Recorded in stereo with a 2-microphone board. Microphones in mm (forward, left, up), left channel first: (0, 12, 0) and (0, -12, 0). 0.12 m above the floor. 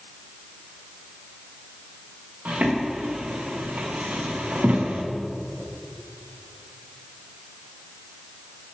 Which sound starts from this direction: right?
Footsteps, at 2.5 s.